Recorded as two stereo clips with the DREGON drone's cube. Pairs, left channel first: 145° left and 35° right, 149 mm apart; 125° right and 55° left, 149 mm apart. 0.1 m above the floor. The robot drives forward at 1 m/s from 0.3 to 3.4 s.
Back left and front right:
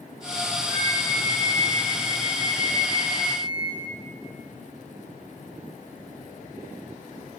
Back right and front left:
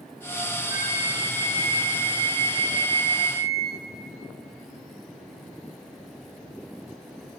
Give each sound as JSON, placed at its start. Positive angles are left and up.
{"t": 0.7, "sound": "a flute", "azimuth_deg": 135, "distance_m": 2.0}